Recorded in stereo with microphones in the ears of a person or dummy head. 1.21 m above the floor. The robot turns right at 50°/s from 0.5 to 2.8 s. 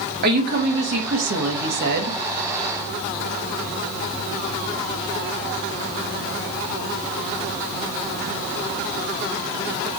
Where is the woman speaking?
130° right, 1.1 m; by 2.2 s 45° right, 1.1 m.